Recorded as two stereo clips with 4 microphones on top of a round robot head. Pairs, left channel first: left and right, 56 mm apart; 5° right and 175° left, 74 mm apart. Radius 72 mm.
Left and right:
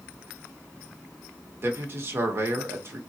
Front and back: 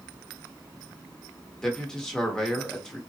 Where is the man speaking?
80° right, 1.0 m.